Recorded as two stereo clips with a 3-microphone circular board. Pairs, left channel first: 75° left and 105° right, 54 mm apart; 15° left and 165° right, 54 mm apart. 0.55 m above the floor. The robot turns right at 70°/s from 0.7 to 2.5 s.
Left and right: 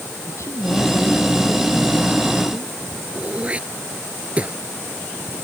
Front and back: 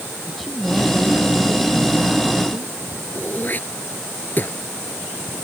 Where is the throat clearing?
40° right.